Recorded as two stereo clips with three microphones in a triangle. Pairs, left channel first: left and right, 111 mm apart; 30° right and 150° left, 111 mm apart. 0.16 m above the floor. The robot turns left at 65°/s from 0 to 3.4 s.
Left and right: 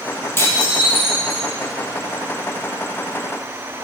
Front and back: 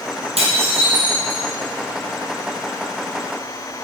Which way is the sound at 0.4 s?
155° left.